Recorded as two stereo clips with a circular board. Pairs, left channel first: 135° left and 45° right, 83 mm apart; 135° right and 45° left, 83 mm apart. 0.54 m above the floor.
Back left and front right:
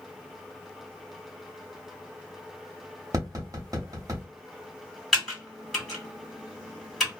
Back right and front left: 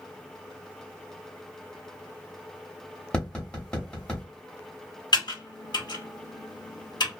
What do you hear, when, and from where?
3.1 s tapping: 60° right, 1.0 m
5.1 s typing on a keyboard: 135° right, 1.6 m